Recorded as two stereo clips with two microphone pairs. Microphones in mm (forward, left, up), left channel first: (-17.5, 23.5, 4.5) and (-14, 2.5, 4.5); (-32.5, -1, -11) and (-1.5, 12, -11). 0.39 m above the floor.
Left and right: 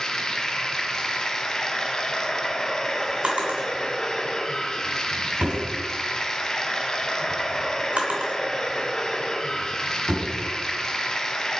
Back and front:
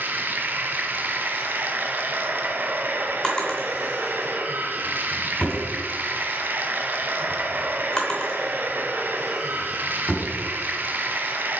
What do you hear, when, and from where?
0.0 s running water: 40° left, 0.9 m
3.2 s a drawer: 90° right, 2 m